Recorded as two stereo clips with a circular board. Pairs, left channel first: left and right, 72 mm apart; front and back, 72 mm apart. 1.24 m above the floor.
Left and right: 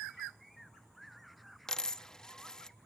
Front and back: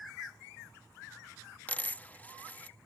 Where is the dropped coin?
20° left.